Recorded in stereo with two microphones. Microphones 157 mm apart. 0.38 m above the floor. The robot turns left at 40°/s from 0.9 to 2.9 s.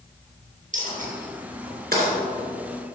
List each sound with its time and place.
0.7 s a dropped coin: 55° right (ahead or behind), 3 m; by 3.0 s 45° right (ahead or behind), 3 m